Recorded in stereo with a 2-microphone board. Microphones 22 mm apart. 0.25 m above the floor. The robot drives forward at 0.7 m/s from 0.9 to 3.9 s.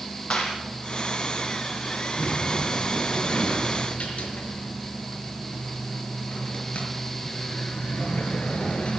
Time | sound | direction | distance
0.3 | a clap | 50° left (ahead or behind) | 6 m
2.2 | a sliding door | 60° left (ahead or behind) | 5.5 m